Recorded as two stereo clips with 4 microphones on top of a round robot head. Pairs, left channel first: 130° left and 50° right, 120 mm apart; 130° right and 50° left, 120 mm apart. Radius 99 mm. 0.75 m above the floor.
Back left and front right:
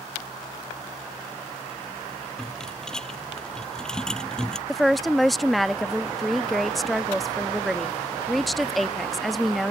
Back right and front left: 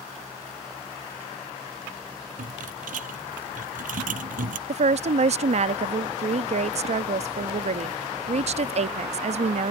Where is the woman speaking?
40° left.